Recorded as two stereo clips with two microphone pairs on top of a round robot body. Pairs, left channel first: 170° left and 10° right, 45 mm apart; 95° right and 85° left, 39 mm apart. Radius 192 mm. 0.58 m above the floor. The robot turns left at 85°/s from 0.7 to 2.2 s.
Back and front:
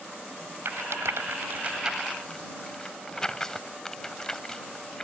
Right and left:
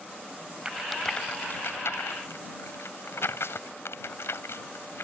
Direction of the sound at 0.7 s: 15° left.